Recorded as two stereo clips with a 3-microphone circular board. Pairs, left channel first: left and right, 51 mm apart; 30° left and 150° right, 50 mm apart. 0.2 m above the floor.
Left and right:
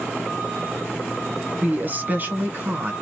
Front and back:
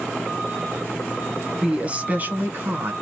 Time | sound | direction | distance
1.6 | a woman speaking | 95° right | 1.2 m